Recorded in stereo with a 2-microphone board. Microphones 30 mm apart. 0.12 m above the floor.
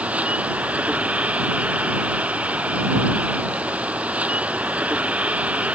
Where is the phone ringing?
No phone ringing in this recording.